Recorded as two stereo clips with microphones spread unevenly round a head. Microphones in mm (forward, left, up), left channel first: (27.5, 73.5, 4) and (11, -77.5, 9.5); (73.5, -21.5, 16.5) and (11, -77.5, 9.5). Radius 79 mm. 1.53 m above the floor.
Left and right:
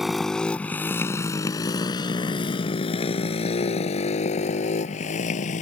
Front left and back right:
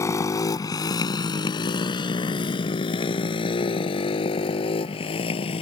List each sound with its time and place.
0.0 s a motorcycle: 10° right; by 5.6 s 45° left